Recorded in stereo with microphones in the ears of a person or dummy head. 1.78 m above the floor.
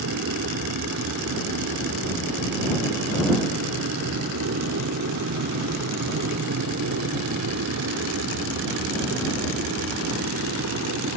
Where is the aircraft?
75° right (ahead or behind); by 11.2 s 80° right.